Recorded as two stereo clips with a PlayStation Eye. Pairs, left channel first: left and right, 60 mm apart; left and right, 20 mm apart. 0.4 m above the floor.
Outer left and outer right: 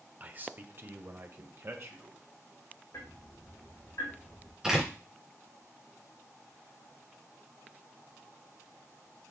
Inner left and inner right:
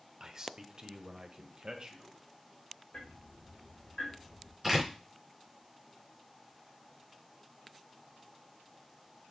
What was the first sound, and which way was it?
A man speaking, 25° right (ahead or behind).